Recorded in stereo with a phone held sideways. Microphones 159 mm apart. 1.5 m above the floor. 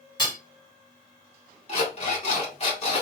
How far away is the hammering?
About 1.6 m.